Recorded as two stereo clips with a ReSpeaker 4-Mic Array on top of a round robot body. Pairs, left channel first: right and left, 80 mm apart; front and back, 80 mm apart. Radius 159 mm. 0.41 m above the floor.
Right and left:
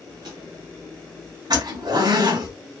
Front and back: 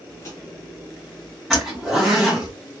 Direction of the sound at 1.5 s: 90° left.